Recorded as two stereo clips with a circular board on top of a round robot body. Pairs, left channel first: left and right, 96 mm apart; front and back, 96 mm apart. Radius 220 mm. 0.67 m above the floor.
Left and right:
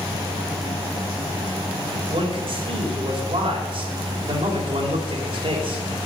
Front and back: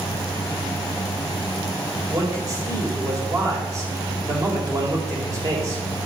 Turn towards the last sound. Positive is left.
turn(degrees=-125)